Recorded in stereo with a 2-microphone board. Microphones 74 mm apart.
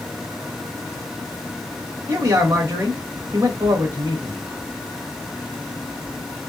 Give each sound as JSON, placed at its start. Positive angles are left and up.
{"t": 2.1, "sound": "a man speaking", "side_deg": -40, "distance_m": 2.0}